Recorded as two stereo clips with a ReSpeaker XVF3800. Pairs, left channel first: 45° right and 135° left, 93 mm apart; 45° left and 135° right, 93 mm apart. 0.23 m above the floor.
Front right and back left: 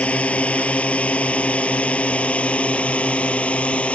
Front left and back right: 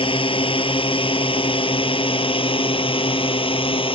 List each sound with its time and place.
0.0 s a drone: 30° left